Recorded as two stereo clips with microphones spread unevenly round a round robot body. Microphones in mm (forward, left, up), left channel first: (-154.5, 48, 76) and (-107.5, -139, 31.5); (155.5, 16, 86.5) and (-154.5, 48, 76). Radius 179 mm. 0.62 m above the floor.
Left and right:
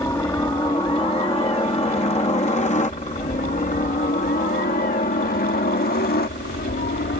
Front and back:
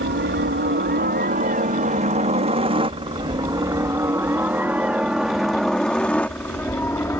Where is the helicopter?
175° left; by 7.2 s 75° left.